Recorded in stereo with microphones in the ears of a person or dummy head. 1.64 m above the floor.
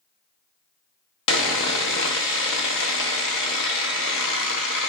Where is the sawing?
70° left (ahead or behind), 0.7 m.